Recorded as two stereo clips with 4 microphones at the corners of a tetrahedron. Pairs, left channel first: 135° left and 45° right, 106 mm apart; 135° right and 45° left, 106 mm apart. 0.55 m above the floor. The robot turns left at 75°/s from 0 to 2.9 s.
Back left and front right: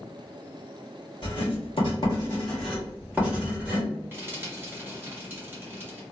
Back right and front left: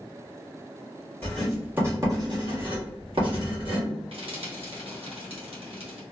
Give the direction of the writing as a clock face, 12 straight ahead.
7 o'clock.